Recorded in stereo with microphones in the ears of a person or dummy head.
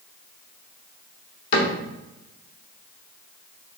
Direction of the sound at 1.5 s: 60° left (ahead or behind).